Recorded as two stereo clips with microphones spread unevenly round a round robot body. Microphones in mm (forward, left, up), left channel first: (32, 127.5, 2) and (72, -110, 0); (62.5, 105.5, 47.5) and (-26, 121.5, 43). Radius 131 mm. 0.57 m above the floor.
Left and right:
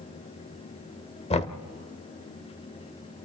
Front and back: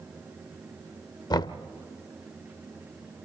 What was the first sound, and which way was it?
Knocking, 35° left.